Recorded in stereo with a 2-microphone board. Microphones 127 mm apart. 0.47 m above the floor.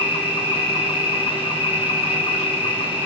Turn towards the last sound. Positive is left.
turn(degrees=50)  # may be behind; listen again after turning